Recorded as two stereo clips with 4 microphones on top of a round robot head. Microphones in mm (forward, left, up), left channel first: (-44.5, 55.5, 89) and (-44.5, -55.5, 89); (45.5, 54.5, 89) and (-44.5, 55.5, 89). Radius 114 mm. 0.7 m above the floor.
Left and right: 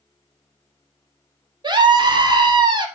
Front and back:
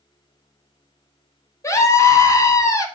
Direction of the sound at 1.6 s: 50° right.